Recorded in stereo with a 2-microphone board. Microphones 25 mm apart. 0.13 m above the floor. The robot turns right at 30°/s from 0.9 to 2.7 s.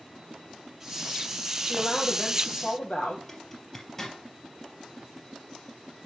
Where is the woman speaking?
95° left, 4 m; by 3.2 s 125° left, 4 m.